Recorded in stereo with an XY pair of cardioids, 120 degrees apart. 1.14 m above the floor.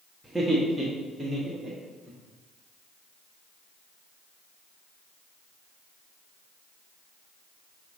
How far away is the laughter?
About 1.6 m.